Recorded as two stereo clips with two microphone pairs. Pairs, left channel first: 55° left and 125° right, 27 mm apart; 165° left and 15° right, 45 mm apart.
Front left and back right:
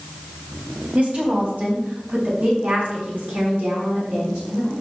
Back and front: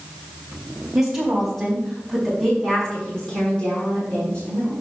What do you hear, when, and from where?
0.9 s a woman speaking: 100° right, 3 m; by 4.7 s 140° right, 6 m